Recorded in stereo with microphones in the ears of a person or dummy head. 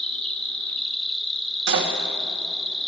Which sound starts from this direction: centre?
An insect, at 0.0 s.